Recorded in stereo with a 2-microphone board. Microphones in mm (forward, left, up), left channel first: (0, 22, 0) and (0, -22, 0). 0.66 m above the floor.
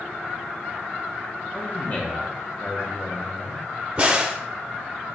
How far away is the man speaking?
About 0.9 m.